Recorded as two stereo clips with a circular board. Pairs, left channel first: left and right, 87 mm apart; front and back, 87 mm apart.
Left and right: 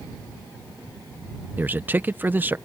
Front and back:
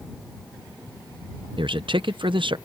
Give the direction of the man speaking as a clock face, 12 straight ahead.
5 o'clock.